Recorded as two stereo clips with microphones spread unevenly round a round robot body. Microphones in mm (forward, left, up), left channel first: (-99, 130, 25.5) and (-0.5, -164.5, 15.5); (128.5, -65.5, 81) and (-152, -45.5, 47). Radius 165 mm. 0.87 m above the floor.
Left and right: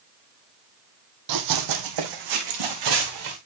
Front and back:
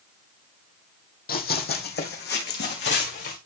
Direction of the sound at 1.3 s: 50° right.